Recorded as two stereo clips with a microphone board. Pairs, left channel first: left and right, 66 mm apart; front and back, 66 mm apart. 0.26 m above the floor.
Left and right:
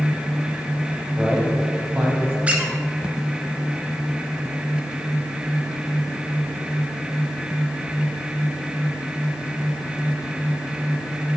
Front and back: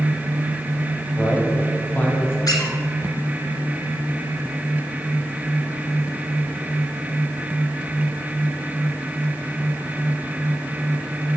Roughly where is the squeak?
Ahead.